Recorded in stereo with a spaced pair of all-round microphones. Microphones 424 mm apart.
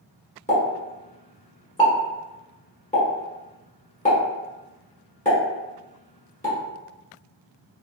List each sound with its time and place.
0.5 s a pop: 15° left (ahead or behind), 1.2 m